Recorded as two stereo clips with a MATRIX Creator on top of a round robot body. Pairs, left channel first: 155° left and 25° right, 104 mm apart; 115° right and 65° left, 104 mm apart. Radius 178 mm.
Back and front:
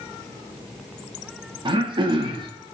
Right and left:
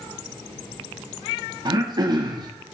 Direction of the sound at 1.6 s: 20° left.